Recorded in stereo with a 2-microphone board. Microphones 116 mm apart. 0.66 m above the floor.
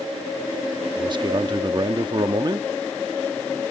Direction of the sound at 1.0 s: 40° right (ahead or behind).